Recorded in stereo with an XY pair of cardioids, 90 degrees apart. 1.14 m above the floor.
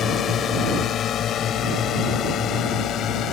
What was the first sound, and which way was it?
A drone, 65° left.